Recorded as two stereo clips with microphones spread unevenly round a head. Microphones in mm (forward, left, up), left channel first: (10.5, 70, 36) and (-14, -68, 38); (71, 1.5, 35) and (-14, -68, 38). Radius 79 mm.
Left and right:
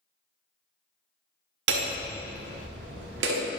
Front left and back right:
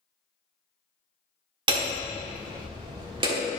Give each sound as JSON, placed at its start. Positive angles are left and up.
{"t": 1.7, "sound": "hammering", "azimuth_deg": -100, "distance_m": 1.3}